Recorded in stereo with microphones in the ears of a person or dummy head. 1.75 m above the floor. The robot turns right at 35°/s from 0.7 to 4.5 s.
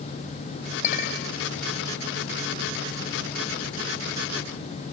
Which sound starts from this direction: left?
A clink, at 0.8 s.